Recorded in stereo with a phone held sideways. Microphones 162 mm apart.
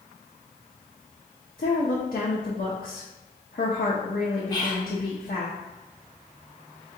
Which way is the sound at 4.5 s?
25° left (ahead or behind).